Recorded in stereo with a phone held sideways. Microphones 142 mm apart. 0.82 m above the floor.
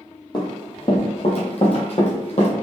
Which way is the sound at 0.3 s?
35° left (ahead or behind).